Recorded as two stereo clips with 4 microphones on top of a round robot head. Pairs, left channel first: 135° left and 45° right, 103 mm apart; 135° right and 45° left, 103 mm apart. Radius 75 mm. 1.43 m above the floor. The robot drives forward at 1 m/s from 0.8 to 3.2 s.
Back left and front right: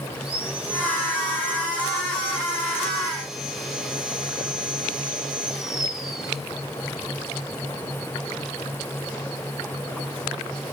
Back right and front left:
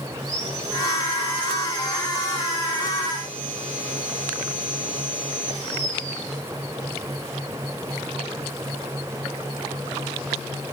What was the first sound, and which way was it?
Sawing, 30° left.